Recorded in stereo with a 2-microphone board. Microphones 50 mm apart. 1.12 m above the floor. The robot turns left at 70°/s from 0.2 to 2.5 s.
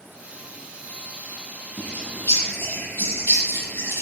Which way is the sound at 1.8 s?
40° left (ahead or behind).